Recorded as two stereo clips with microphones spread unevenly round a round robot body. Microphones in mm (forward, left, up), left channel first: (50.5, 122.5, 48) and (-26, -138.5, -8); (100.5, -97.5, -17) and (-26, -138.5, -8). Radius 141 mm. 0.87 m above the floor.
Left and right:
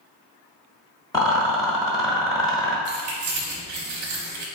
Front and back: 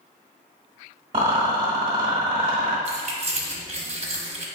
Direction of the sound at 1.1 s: 145° left.